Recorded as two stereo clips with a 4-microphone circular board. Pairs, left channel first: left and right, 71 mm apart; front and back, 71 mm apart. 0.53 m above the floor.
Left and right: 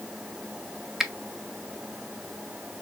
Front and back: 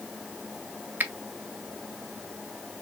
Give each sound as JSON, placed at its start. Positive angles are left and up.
{"t": 1.0, "sound": "a finger snap", "azimuth_deg": -170, "distance_m": 0.5}